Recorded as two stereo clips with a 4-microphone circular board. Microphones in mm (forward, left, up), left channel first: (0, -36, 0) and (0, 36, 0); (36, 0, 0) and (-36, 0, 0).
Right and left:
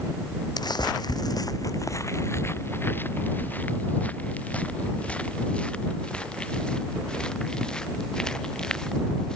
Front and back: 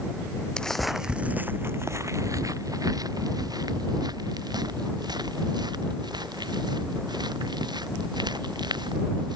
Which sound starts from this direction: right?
Footsteps, at 0.6 s.